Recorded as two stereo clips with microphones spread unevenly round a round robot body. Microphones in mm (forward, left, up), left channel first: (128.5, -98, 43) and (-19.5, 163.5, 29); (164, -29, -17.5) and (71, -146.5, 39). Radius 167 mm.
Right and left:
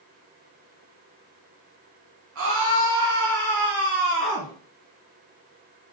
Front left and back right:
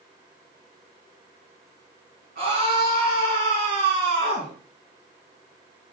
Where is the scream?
170° left, 4 m; by 4.5 s 170° right, 4 m.